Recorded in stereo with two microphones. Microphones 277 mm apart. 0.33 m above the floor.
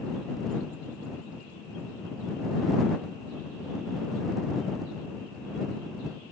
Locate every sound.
Only background noise.